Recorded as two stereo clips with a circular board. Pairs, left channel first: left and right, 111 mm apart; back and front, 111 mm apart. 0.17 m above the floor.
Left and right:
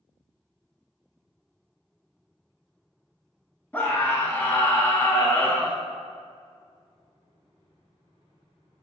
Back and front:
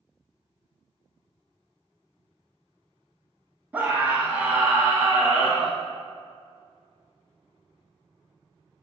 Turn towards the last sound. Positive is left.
turn(degrees=45)